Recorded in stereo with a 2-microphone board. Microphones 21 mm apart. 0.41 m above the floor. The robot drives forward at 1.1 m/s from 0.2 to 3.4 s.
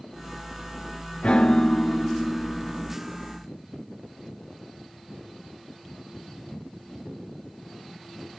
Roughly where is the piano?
Left.